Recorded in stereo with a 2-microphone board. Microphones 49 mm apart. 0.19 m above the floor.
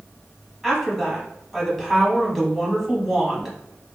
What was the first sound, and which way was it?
A woman speaking, centre (ahead or behind).